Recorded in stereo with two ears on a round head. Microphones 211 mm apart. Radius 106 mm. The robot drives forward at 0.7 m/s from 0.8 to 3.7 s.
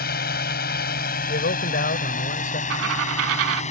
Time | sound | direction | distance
0.0 | a drone | 45° left (ahead or behind) | ?
1.3 | a man speaking | 45° left (ahead or behind) | ?
2.7 | a dropped coin | 55° right (ahead or behind) | ?